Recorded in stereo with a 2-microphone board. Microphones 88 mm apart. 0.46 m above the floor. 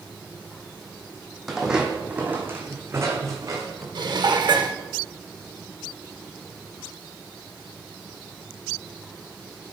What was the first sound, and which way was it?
Footsteps, centre (ahead or behind).